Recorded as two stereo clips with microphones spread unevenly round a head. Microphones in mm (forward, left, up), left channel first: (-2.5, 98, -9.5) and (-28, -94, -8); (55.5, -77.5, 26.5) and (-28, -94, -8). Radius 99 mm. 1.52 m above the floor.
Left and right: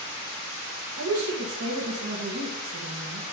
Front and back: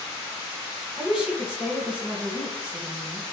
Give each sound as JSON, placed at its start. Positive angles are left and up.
{"t": 1.0, "sound": "a woman speaking", "azimuth_deg": -90, "distance_m": 1.9}